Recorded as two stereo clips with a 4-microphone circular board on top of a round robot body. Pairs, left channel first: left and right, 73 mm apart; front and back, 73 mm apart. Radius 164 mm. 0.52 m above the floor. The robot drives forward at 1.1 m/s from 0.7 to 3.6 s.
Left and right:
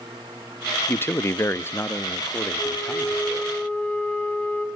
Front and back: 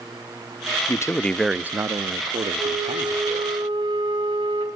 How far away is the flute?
About 2.5 m.